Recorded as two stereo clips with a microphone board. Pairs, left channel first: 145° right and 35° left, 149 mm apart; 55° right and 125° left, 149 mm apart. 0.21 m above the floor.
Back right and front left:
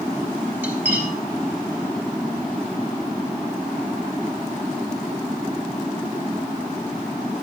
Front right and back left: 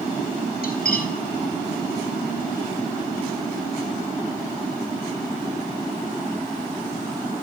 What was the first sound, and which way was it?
Cutlery clinking, 40° right.